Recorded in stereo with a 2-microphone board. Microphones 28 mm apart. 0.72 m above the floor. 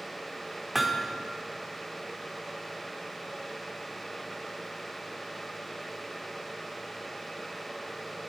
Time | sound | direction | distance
0.8 | hammering | 5° right (ahead or behind) | 0.9 m